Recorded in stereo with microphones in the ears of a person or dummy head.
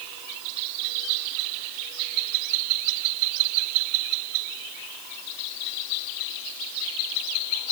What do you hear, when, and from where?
Only background noise.